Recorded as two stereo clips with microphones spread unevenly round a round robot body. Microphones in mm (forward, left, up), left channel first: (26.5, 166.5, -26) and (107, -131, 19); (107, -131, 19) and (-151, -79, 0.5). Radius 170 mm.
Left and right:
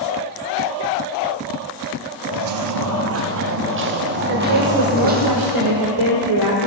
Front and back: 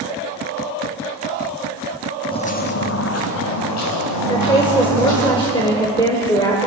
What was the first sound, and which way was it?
Footsteps, 80° right.